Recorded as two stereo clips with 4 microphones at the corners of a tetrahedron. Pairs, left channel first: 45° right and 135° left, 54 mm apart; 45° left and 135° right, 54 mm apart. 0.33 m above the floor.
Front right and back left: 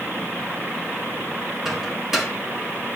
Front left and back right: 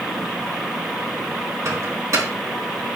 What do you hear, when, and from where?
1.6 s a microwave: 140° right, 3 m